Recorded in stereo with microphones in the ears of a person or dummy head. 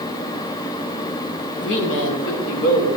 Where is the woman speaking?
65° left (ahead or behind), 1.9 m; by 2.9 s 80° left, 2.5 m.